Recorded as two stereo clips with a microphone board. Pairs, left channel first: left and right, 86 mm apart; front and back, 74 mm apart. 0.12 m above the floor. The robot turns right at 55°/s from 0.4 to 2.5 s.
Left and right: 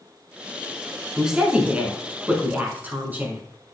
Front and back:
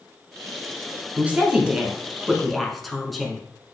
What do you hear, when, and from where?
1.2 s a woman speaking: 160° right, 1.3 m; by 3.4 s 85° right, 1.3 m